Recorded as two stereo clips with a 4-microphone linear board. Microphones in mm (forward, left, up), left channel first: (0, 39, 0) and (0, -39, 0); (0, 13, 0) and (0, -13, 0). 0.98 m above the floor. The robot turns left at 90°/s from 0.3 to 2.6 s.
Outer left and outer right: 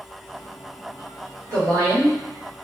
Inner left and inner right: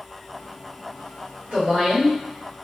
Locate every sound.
1.5 s a woman speaking: 85° right, 1.4 m; by 2.1 s 145° right, 1.4 m